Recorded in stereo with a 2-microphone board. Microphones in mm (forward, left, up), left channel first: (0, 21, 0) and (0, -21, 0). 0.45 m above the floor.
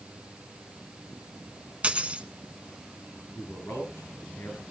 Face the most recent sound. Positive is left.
turn(degrees=70)  # may be behind; listen again after turning